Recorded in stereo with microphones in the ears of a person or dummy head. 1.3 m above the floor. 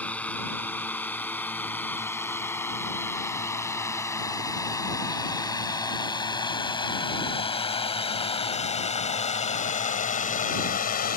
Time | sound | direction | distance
0.0 | a drone | 5° left (ahead or behind) | ?